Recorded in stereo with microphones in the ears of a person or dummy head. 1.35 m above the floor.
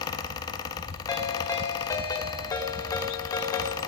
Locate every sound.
0.0 s a fan: 25° left (ahead or behind), 1.5 m
1.1 s a ringtone: 20° left (ahead or behind), 2.5 m